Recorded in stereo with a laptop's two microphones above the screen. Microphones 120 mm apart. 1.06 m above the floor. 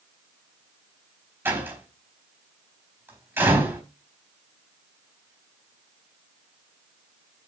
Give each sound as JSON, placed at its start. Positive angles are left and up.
{"t": 1.4, "sound": "a door slam", "side_deg": -20, "distance_m": 4.0}